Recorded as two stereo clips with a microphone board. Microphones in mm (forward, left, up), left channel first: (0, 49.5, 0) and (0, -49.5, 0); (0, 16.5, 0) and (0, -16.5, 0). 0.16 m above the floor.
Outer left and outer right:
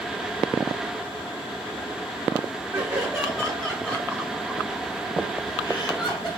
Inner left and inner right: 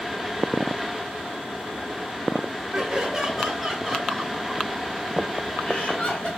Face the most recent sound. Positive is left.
turn(degrees=45)  # may be behind; listen again after turning